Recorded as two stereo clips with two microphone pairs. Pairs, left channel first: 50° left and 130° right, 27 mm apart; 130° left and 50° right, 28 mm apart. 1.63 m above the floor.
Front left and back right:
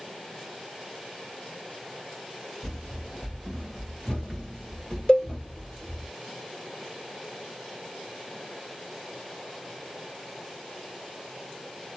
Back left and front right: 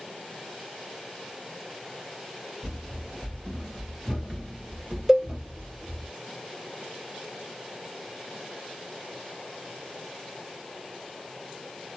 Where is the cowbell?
20° left, 1.4 m.